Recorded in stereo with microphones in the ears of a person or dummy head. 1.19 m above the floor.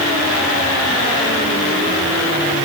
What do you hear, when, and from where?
Only background noise.